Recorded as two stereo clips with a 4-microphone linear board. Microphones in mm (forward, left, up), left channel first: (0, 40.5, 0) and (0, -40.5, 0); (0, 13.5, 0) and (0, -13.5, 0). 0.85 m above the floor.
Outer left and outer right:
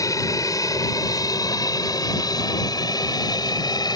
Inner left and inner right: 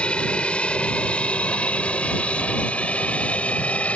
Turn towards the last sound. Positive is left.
turn(degrees=55)  # may be behind; listen again after turning